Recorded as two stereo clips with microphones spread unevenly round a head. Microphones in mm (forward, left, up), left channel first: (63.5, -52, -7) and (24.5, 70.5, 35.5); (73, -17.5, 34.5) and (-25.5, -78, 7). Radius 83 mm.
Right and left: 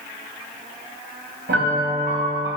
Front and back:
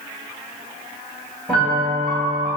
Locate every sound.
1.5 s a piano: 120° left, 2.5 m